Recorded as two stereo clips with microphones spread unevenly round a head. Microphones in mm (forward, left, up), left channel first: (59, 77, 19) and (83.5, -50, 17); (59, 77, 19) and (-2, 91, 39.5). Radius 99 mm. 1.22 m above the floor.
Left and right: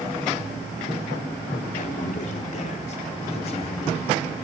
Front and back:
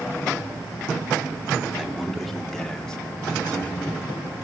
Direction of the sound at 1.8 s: 80° left.